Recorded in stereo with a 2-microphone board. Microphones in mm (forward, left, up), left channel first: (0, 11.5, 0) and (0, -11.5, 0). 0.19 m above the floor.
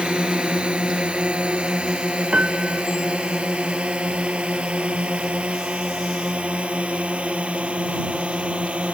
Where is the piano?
65° right (ahead or behind).